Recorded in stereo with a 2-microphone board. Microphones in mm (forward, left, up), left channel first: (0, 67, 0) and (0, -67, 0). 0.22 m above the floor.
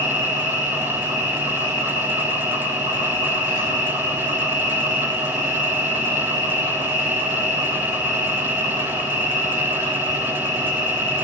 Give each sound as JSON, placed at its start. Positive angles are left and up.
{"t": 0.0, "sound": "an insect", "side_deg": 70, "distance_m": 0.9}